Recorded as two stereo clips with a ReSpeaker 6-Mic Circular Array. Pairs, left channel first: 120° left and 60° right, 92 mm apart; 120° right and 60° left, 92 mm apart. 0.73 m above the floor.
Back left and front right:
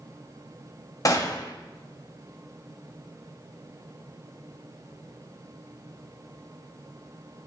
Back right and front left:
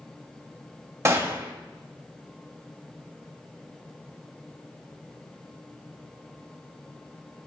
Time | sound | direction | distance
1.1 | a gunshot | 105° left | 1.3 m